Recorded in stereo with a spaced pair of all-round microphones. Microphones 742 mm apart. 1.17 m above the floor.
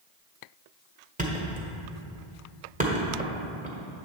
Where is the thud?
10° right (ahead or behind), 1.3 m.